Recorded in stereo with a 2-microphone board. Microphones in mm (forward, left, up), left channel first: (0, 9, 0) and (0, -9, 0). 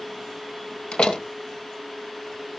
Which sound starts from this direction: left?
A door slam, at 0.9 s.